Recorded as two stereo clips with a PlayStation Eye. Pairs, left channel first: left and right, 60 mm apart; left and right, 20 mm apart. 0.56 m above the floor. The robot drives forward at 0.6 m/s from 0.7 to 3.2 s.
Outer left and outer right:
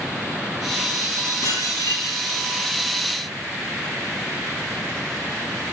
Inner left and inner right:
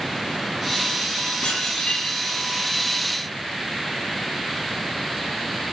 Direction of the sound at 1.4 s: 75° left (ahead or behind).